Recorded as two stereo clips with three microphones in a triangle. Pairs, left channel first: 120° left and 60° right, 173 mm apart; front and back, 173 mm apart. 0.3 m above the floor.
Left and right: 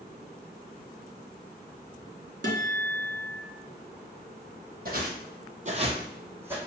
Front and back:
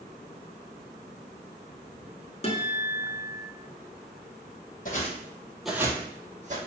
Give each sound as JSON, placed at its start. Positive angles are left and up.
{"t": 2.4, "sound": "a guitar", "azimuth_deg": -55, "distance_m": 0.7}
{"t": 4.8, "sound": "footsteps", "azimuth_deg": -35, "distance_m": 0.6}